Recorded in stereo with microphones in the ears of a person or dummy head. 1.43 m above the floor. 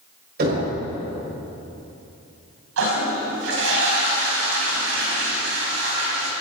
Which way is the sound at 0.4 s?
55° right (ahead or behind).